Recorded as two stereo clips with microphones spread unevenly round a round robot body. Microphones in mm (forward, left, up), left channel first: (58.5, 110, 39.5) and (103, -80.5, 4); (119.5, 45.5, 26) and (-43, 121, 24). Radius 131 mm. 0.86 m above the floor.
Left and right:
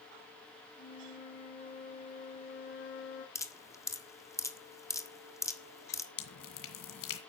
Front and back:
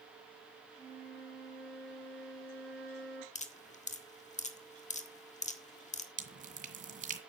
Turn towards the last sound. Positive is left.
turn(degrees=115)